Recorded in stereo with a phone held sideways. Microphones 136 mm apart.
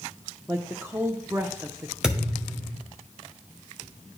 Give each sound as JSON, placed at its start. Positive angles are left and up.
{"t": 0.5, "sound": "a woman speaking", "side_deg": -15, "distance_m": 0.6}
{"t": 2.0, "sound": "a thud", "side_deg": -5, "distance_m": 1.8}